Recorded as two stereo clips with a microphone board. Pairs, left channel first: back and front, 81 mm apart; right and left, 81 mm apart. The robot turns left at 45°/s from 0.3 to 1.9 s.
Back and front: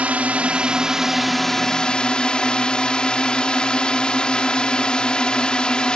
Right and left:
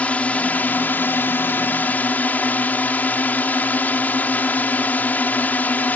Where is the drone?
45° right; by 6.0 s 120° right.